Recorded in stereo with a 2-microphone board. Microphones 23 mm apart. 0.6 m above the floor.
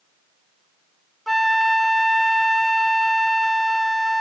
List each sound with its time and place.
1.3 s a flute: 5° left (ahead or behind)